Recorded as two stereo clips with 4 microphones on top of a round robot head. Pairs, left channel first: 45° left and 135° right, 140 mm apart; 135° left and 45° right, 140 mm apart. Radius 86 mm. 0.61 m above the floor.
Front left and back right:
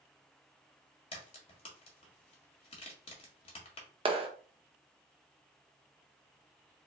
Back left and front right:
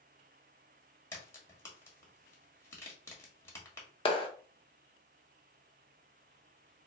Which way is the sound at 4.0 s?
Straight behind.